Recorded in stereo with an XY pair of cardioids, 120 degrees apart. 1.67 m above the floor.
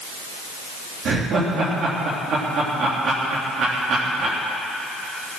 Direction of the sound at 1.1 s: 60° right.